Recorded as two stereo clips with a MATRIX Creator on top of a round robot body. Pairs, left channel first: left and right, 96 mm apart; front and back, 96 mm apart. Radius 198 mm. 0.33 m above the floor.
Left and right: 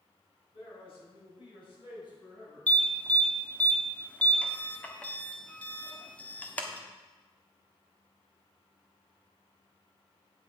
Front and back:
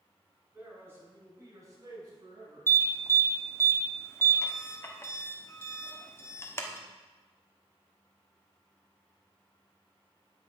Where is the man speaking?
110° left, 4.5 m; by 2.7 s 140° left, 5 m.